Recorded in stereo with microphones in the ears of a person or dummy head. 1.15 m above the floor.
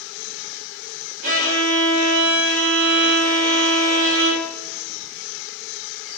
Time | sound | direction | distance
1.2 | a violin | 60° right (ahead or behind) | 1.4 m